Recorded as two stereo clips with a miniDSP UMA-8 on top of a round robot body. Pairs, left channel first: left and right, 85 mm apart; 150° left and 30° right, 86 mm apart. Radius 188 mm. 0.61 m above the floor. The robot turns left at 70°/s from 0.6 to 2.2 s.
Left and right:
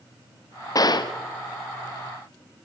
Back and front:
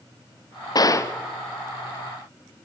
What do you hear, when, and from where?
0.8 s a gunshot: 125° left, 1.8 m; by 1.1 s 95° left, 1.8 m